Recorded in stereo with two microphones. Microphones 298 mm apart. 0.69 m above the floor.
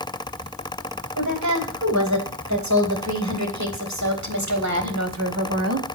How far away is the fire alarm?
No fire alarm in this recording.